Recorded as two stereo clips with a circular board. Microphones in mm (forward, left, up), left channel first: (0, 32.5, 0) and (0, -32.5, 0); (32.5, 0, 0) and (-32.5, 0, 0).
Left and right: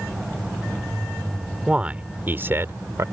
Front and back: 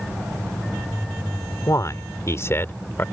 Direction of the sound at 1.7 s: 20° right.